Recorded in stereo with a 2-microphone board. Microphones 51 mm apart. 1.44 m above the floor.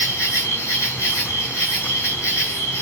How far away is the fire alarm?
I don't hear a fire alarm.